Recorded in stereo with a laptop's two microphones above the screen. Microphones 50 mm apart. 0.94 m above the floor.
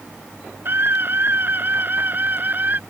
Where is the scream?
45° right (ahead or behind); by 2.8 s 35° right (ahead or behind).